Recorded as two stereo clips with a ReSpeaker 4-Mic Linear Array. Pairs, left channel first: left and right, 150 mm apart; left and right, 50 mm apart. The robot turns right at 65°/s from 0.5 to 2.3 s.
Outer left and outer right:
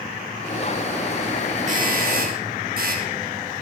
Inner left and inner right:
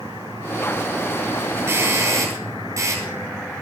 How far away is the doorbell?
About 8.5 m.